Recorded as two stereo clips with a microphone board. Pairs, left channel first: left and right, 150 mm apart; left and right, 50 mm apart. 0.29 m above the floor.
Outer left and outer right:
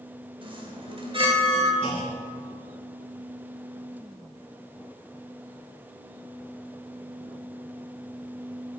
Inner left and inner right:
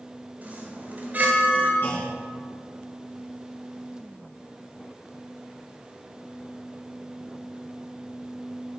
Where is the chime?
35° right (ahead or behind), 1.7 m.